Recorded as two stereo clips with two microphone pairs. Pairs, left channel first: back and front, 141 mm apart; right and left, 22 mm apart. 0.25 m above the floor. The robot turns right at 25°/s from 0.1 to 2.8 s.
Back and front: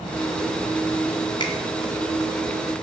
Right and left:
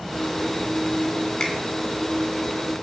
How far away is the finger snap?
About 2 m.